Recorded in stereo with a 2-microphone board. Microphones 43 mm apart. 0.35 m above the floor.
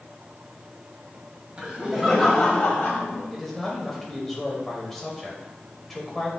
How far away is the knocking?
No knocking in this recording.